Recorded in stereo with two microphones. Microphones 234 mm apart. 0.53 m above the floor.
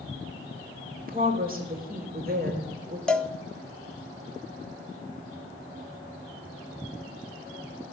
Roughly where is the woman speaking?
Right.